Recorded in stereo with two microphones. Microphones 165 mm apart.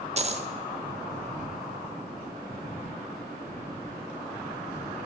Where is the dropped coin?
40° right (ahead or behind), 0.6 m.